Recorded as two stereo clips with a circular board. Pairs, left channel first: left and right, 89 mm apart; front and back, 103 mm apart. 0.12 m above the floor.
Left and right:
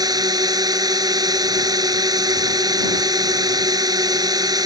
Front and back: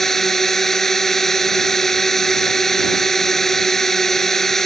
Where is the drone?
85° right.